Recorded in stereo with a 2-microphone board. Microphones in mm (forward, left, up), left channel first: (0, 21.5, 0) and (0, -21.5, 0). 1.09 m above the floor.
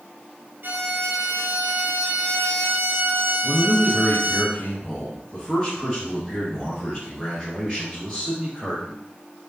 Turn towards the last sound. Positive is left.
turn(degrees=20)  # may be behind; listen again after turning